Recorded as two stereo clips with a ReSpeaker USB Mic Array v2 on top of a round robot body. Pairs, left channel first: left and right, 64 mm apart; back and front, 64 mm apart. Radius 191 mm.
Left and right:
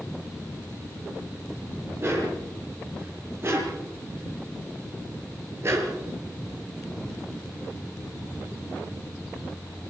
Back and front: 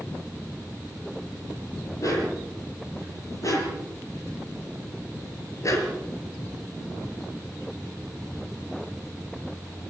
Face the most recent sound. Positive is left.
turn(degrees=-140)